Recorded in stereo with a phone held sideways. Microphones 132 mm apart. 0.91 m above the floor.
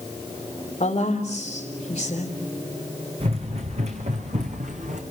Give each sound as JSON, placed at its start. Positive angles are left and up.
{"t": 0.8, "sound": "a woman speaking", "side_deg": 50, "distance_m": 4.0}
{"t": 3.2, "sound": "running footsteps", "side_deg": -50, "distance_m": 4.0}